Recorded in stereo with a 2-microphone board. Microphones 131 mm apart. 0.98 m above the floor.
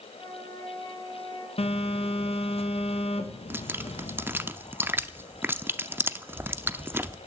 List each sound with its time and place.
0.1 s a flute: 30° left (ahead or behind), 3.5 m
1.6 s a phone buzzing: 50° left (ahead or behind), 1.1 m
3.5 s dripping: 20° right (ahead or behind), 0.5 m